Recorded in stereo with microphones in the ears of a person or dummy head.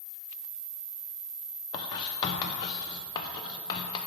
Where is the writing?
25° left (ahead or behind), 0.7 m.